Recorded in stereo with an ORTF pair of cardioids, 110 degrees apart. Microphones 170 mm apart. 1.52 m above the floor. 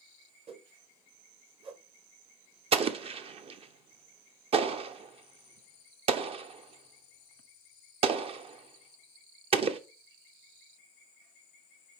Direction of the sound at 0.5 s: 35° right.